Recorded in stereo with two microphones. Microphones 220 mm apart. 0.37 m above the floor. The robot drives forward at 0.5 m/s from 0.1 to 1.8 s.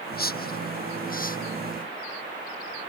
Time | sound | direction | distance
0.1 | a whoosh | 45° left (ahead or behind) | ?